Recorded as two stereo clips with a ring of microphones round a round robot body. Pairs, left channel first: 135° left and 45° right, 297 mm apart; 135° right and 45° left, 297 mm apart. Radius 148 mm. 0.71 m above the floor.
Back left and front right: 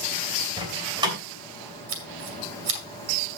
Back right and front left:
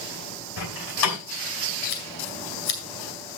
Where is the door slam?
120° right, 2.5 m.